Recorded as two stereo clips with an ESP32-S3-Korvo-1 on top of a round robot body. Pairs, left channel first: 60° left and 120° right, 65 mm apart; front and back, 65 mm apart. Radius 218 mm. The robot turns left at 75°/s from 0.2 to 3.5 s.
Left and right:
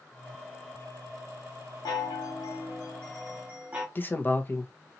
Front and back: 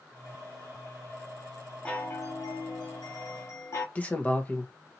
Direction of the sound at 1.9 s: 75° left.